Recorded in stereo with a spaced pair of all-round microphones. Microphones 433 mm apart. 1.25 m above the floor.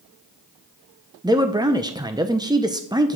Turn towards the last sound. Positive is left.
turn(degrees=-10)  # may be behind; listen again after turning